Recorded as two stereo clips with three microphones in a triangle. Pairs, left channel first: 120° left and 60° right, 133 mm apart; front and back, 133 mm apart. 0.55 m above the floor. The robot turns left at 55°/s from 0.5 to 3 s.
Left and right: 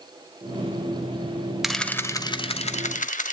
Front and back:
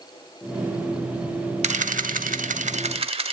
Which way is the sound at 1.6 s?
150° right.